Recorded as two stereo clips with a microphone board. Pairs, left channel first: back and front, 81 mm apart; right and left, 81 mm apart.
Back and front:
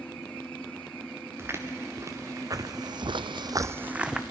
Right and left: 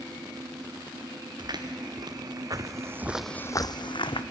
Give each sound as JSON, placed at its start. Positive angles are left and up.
{"t": 1.4, "sound": "footsteps", "azimuth_deg": 60, "distance_m": 2.5}